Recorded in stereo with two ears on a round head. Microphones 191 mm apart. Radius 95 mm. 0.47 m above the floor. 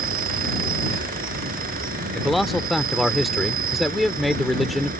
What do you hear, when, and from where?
0.0 s an insect: 40° right (ahead or behind)
2.1 s a man speaking: centre (ahead or behind)